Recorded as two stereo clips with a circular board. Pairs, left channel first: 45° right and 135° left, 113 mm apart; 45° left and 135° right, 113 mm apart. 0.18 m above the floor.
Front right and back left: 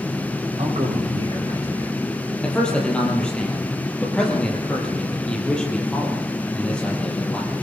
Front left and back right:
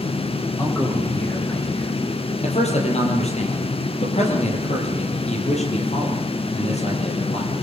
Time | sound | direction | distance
0.6 | a man speaking | 105° left | 9.5 m
2.4 | a man speaking | 35° left | 6 m